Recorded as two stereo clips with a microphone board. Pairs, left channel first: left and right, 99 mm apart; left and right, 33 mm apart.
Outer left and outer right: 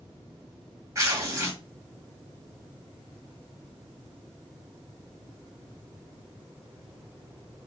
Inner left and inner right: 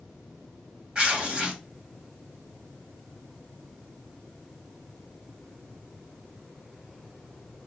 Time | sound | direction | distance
0.9 | tearing paper | 35° right (ahead or behind) | 2 m